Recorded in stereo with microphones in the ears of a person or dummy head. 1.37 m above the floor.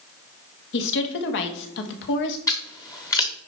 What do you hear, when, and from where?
0.7 s a woman speaking: 65° left (ahead or behind), 1.5 m
2.5 s scissors: 15° left (ahead or behind), 1.0 m